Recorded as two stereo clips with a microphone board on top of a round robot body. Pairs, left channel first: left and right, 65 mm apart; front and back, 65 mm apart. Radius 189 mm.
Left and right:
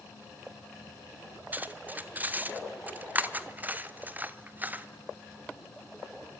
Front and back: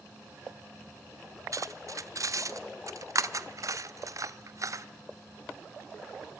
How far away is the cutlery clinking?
About 1.1 m.